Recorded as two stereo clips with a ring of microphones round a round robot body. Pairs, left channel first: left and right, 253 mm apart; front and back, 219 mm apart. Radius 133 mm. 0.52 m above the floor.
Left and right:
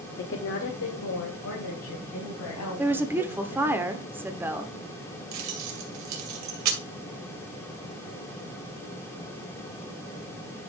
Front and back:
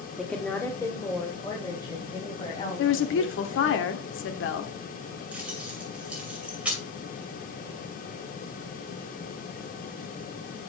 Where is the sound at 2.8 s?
10° right, 1.2 m.